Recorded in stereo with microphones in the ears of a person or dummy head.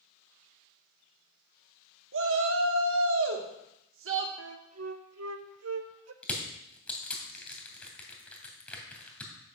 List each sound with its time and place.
2.1 s a shout: 70° right (ahead or behind), 1.6 m
4.4 s a flute: 80° right, 0.7 m
6.2 s crushing: 10° left (ahead or behind), 2.5 m